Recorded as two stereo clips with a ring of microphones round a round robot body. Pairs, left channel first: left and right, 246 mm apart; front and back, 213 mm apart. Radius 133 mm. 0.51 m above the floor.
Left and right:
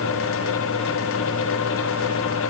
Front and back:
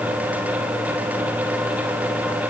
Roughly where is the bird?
I don't hear a bird.